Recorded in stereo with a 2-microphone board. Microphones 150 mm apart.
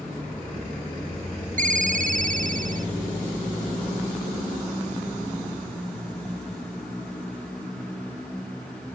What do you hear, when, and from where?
1.6 s a ringtone: 55° right (ahead or behind)